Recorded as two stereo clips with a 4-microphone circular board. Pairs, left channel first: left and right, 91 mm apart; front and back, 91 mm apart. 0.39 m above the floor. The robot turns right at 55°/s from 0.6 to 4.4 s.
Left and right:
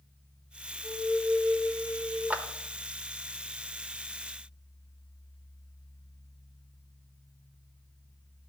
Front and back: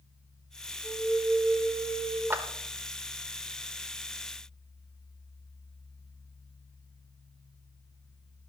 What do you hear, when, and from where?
0.8 s a flute: 145° right, 6 m; by 2.2 s 70° right, 6 m
2.3 s a clap: 145° right, 0.9 m; by 2.4 s 140° right, 0.9 m